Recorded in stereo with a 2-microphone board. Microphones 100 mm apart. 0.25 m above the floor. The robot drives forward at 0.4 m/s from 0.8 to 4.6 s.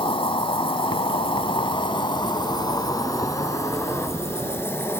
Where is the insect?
60° left (ahead or behind), 0.8 m; by 5.0 s 25° left (ahead or behind), 1.6 m.